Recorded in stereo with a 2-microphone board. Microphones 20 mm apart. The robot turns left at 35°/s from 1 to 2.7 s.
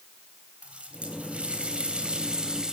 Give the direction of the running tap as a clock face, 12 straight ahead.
3 o'clock.